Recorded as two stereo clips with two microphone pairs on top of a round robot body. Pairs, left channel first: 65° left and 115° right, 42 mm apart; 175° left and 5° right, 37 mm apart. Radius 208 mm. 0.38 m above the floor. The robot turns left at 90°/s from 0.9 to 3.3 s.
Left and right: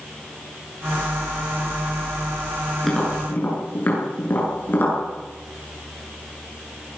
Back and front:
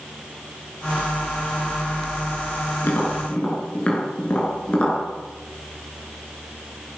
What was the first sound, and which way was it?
Tapping, 155° left.